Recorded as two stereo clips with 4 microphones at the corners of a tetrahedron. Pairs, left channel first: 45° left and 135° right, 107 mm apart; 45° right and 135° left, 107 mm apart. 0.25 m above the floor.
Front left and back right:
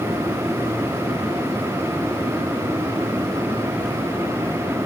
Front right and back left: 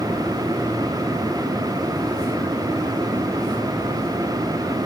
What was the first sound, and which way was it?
Only background noise.